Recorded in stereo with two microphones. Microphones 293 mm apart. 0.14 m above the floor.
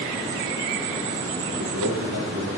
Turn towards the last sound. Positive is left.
turn(degrees=-70)  # may be behind; listen again after turning